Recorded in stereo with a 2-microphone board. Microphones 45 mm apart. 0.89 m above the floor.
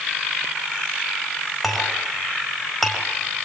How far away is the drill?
I don't hear a drill.